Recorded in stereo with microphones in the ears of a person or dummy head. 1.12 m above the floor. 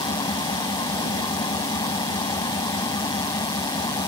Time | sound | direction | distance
0.0 | an engine running | 25° left (ahead or behind) | ?